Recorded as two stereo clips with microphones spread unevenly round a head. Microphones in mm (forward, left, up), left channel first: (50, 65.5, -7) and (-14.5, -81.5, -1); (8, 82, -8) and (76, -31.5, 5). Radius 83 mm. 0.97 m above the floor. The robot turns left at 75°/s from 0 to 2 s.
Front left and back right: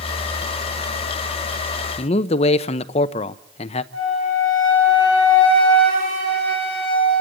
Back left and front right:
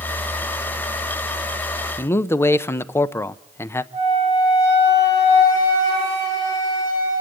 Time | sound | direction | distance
2.0 | a man speaking | 70° left | 0.6 m
3.9 | a flute | 130° right | 7.5 m